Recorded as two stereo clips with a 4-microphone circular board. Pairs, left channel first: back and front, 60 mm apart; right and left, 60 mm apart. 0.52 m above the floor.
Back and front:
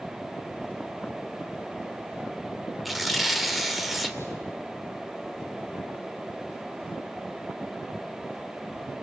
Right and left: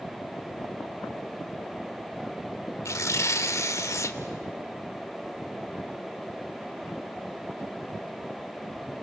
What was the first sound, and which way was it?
Tearing paper, 90° right.